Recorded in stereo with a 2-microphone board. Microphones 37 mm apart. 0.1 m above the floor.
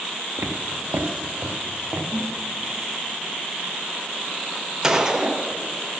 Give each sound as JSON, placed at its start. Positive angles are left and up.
{"t": 0.4, "sound": "footsteps", "side_deg": -75, "distance_m": 1.2}
{"t": 2.1, "sound": "a toilet flushing", "side_deg": -5, "distance_m": 2.5}
{"t": 4.8, "sound": "a gunshot", "side_deg": -15, "distance_m": 0.9}